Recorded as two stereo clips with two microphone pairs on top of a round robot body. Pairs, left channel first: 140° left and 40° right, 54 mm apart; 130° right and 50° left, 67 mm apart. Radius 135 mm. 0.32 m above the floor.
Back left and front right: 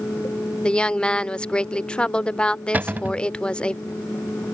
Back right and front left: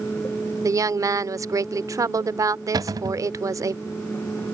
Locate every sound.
0.6 s a woman speaking: 75° left
2.7 s a cupboard door: 20° left